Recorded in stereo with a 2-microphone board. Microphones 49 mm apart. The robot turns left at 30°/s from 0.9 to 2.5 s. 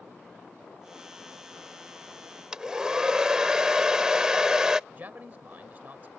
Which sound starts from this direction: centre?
A hair dryer, at 2.5 s.